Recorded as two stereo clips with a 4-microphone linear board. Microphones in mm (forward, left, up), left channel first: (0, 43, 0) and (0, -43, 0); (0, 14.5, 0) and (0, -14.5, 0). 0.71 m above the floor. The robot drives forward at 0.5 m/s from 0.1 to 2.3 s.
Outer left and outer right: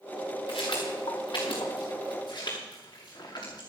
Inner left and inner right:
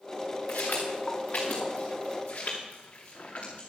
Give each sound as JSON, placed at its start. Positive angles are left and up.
{"t": 0.5, "sound": "footsteps", "side_deg": 80, "distance_m": 4.5}